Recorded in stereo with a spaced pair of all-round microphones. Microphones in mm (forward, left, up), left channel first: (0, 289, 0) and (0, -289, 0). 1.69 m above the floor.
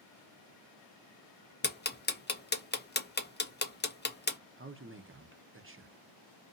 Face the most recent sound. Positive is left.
turn(degrees=-25)  # may be behind; listen again after turning